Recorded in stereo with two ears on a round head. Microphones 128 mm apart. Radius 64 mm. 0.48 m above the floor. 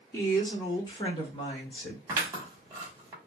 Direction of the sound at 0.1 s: 20° left (ahead or behind).